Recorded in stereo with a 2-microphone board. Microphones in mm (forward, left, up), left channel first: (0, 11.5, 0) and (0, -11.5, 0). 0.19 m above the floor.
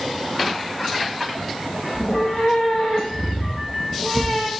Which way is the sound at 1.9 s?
40° left (ahead or behind).